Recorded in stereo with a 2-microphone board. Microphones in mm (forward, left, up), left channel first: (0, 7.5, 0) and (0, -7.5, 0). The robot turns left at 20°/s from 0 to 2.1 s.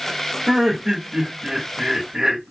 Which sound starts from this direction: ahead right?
Laughter, at 0.5 s.